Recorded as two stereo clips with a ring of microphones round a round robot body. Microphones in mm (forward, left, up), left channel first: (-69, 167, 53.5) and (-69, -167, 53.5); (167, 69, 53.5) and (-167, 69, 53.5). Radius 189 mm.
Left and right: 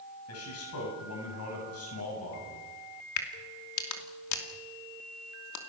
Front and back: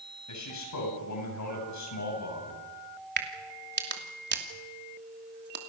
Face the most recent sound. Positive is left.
turn(degrees=125)